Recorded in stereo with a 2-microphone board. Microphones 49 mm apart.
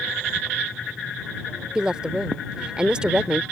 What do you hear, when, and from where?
1.8 s a woman speaking: 20° right (ahead or behind)